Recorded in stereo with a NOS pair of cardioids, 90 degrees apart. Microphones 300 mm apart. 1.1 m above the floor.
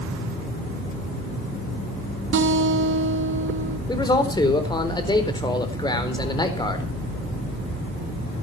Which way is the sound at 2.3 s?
40° right.